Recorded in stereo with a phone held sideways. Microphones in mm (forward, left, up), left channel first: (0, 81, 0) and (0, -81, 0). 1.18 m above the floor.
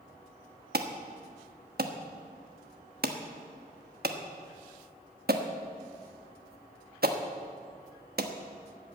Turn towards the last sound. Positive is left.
turn(degrees=-75)  # may be behind; listen again after turning